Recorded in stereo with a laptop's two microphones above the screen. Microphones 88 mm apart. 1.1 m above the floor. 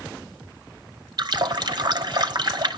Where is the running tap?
50° right (ahead or behind), 0.7 m.